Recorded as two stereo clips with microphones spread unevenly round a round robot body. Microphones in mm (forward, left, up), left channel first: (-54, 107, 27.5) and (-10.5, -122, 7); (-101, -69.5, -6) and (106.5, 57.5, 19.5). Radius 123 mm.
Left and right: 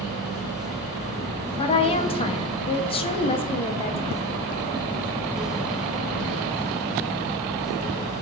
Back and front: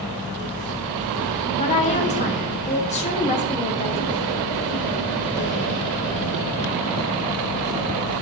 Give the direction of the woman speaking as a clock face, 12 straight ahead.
7 o'clock.